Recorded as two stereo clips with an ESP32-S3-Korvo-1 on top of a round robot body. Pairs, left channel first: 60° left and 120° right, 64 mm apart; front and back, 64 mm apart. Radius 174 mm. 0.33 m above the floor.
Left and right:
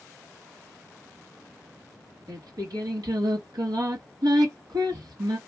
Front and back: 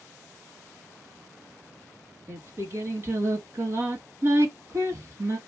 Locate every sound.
2.3 s singing: 130° right, 3 m